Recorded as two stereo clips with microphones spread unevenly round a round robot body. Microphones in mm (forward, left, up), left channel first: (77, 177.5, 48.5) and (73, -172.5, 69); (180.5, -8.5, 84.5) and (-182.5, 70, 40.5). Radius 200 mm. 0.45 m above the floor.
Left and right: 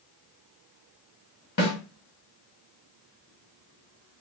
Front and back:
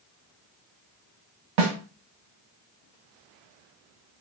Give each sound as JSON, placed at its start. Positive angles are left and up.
{"t": 1.6, "sound": "a snare drum", "azimuth_deg": 145, "distance_m": 1.3}